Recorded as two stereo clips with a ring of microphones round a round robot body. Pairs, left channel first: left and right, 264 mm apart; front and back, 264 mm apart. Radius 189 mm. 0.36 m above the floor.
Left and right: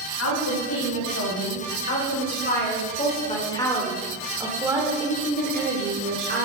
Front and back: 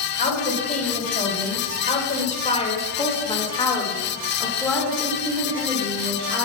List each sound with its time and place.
0.2 s a woman speaking: 60° left, 3 m; by 6.5 s 110° right, 1.9 m